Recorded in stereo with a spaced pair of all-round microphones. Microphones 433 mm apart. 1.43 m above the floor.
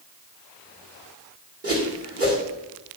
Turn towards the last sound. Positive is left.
turn(degrees=-30)  # may be behind; listen again after turning